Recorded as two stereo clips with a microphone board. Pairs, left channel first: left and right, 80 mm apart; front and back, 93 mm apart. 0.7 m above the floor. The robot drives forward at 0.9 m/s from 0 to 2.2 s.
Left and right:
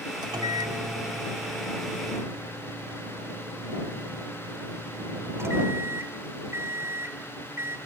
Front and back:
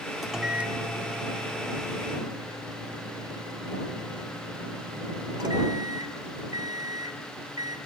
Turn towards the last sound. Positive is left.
turn(degrees=-145)